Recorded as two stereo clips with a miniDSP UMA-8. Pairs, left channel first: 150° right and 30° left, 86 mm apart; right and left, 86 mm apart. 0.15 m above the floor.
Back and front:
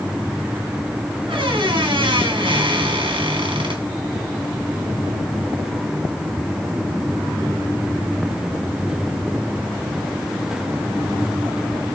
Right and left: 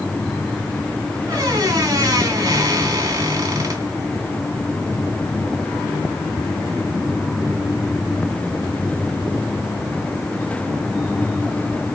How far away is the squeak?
About 4 m.